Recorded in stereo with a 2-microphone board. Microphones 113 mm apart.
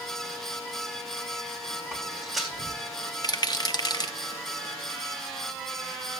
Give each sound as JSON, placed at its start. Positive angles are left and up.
{"t": 1.9, "sound": "footsteps", "side_deg": 0, "distance_m": 3.5}
{"t": 3.2, "sound": "a rattle", "side_deg": 35, "distance_m": 1.1}